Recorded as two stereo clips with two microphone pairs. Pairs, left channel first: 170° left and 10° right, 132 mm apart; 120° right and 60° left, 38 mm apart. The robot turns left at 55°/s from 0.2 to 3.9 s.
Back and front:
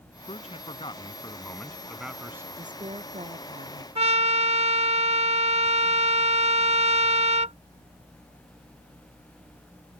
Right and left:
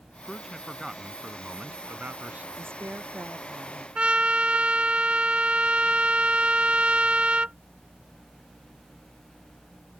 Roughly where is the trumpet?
Ahead.